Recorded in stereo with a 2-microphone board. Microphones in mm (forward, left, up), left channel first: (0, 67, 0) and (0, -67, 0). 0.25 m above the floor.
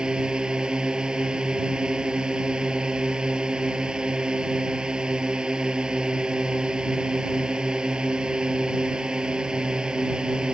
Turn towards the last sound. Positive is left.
turn(degrees=-5)  # may be behind; listen again after turning